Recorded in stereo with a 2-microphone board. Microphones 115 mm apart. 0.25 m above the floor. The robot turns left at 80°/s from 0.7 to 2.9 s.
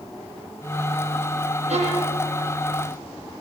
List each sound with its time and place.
1.7 s a violin: 100° right, 7.5 m; by 2.2 s 140° right, 7.5 m